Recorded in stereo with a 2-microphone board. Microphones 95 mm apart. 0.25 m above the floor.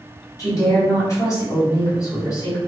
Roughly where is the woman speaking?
Left.